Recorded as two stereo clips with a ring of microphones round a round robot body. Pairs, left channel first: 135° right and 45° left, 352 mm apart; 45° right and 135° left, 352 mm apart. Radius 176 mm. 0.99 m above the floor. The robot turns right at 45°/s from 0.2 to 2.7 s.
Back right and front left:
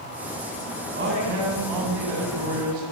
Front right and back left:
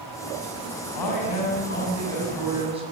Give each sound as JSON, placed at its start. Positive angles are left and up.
{"t": 0.9, "sound": "a man speaking", "azimuth_deg": -20, "distance_m": 6.0}